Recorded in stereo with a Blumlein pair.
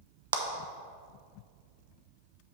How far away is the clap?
About 0.8 m.